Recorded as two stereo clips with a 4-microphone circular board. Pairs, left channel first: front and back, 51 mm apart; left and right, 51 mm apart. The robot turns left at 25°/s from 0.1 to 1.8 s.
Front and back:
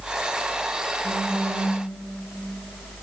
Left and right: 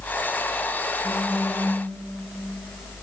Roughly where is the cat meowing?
I don't hear a cat meowing.